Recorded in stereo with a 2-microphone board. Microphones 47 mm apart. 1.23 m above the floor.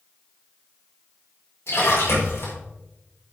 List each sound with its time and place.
1.7 s a splash: 65° left (ahead or behind), 4.5 m